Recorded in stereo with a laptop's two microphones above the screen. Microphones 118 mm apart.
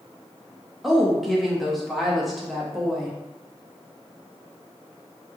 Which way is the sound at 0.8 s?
Centre (ahead or behind).